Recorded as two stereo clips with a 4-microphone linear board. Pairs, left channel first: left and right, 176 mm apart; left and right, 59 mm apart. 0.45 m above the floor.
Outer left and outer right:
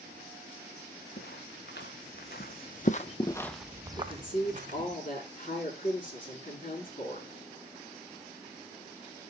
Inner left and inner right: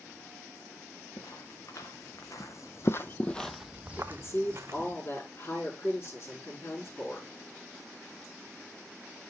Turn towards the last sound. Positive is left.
turn(degrees=50)  # may be behind; listen again after turning